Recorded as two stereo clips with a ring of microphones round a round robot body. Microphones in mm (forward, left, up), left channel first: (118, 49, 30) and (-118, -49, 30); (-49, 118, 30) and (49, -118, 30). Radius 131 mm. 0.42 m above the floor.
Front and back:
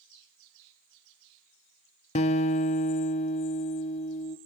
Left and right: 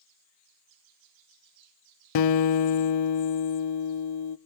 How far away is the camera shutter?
No camera shutter in this recording.